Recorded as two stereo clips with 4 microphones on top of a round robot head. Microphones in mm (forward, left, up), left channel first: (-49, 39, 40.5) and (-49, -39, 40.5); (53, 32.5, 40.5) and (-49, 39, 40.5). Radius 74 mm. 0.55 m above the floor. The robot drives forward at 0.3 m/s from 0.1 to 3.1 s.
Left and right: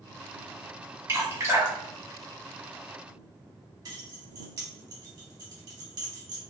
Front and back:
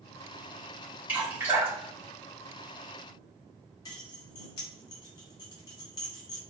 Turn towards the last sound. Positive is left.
turn(degrees=-55)